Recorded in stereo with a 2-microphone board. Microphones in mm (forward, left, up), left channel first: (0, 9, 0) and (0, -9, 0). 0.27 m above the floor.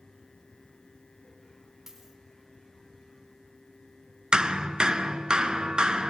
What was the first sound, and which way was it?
A dropped coin, 20° right (ahead or behind).